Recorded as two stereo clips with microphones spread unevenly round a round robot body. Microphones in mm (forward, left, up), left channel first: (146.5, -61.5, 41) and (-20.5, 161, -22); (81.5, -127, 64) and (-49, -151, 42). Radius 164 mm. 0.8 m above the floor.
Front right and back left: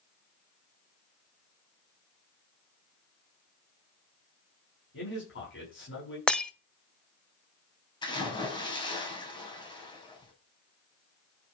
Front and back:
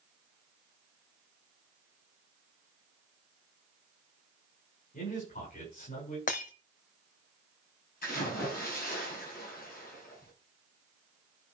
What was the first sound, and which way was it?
A man speaking, 5° right.